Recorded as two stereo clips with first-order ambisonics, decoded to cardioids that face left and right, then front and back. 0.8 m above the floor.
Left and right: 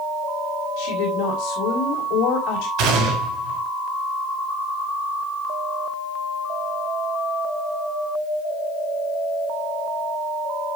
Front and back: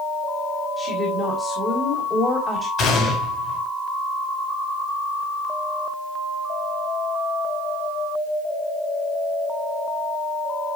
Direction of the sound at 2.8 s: 55° right.